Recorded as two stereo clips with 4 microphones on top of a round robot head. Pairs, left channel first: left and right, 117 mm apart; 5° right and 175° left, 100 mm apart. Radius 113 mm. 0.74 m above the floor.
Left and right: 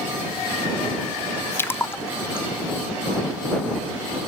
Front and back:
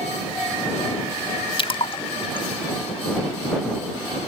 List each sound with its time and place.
1.6 s a splash: 20° left